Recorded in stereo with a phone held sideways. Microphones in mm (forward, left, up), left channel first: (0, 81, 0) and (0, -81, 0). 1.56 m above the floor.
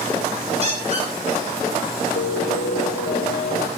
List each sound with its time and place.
0.6 s a squeak: 40° right (ahead or behind), 6 m
2.2 s a piano: 65° left (ahead or behind), 0.7 m